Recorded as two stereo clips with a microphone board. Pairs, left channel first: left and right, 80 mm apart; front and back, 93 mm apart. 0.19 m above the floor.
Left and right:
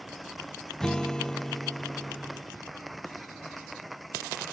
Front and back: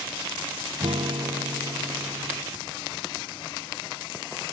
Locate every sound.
0.8 s a guitar: 170° left